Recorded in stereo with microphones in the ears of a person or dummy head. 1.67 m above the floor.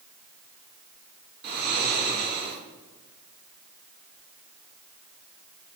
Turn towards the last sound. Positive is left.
turn(degrees=-50)  # may be behind; listen again after turning